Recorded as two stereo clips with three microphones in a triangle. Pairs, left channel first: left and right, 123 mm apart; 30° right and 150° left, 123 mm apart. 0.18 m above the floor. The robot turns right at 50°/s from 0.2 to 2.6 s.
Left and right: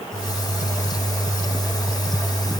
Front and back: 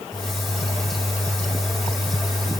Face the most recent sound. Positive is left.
No sound to turn to.